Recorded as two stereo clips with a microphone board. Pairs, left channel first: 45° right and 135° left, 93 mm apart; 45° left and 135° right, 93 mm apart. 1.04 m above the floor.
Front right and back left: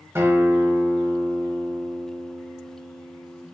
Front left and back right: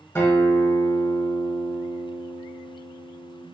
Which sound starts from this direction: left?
A guitar, at 0.1 s.